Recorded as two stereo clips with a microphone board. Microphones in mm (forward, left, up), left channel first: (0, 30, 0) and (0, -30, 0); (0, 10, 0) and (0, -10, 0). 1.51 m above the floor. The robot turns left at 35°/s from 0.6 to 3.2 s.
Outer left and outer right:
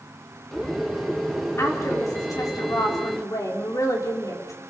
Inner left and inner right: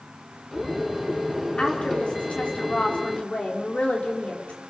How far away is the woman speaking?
About 4.5 m.